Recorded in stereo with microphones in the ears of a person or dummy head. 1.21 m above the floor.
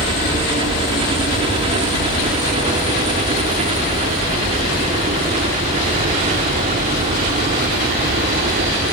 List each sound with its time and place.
0.0 s a helicopter: 30° right (ahead or behind); by 8.9 s 40° right (ahead or behind)